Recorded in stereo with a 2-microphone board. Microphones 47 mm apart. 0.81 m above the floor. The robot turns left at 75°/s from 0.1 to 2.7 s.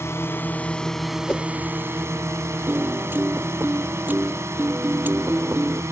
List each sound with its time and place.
0.0 s a drone: 65° left (ahead or behind); by 5.9 s 80° right
1.3 s a whoosh: 25° left (ahead or behind); by 1.4 s 15° left (ahead or behind)
2.7 s a piano: 45° right (ahead or behind)